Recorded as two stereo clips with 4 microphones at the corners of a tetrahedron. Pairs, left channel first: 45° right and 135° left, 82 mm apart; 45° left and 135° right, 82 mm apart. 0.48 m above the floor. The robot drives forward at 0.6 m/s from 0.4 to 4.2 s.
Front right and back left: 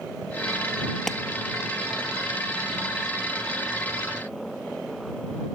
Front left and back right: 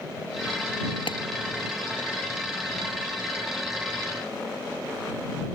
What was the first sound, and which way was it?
A clap, 40° left.